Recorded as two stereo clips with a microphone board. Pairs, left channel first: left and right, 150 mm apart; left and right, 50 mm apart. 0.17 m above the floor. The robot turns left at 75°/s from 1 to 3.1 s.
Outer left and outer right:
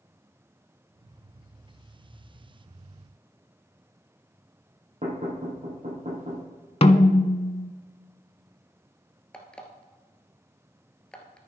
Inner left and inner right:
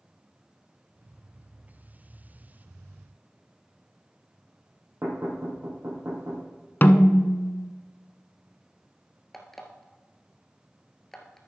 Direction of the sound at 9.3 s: 5° left (ahead or behind).